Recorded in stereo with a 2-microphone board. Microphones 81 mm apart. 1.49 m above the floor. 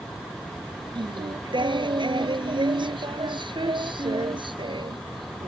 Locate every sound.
0.9 s singing: 75° right (ahead or behind)